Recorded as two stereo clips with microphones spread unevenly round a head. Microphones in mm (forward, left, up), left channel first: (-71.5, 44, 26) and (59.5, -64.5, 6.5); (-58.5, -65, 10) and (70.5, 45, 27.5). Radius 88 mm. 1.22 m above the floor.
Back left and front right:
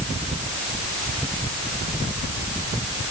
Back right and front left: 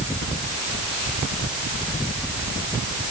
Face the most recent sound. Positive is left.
No sound to turn to.